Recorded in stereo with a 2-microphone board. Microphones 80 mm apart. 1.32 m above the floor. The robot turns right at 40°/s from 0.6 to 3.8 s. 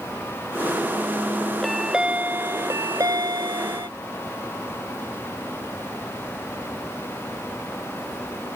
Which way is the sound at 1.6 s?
Straight behind.